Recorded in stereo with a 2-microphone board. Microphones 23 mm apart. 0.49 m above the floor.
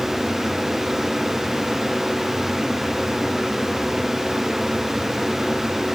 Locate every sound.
Only background noise.